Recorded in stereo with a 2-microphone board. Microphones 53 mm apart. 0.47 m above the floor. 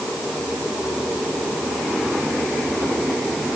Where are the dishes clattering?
I don't hear dishes clattering.